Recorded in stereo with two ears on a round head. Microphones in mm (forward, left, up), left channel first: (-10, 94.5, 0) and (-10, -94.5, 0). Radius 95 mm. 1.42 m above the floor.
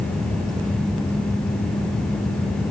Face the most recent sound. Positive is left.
No sound to turn to.